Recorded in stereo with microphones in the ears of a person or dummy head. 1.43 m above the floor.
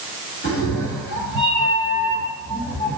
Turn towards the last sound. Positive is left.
turn(degrees=30)  # may be behind; listen again after turning